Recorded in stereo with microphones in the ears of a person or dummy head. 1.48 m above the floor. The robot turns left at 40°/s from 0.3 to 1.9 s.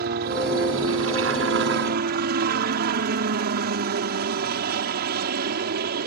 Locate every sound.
0.0 s a helicopter: 65° right; by 6.1 s 130° right